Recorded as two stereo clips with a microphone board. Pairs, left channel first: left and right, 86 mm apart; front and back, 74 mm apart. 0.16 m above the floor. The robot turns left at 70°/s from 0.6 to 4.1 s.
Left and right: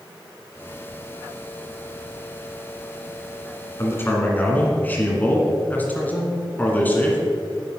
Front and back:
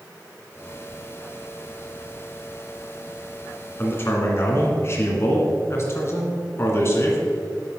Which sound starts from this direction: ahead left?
A man speaking, at 3.8 s.